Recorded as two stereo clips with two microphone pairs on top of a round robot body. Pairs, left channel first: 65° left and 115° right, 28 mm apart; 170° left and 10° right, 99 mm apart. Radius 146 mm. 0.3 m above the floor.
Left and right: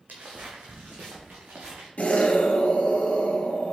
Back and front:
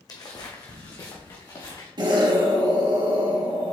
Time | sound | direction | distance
0.1 | footsteps | 140° right | 1.7 m
2.0 | an explosion | 30° left | 2.5 m